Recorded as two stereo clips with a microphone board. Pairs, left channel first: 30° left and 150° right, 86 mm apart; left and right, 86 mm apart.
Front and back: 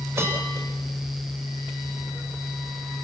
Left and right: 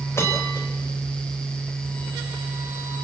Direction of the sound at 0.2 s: 150° left.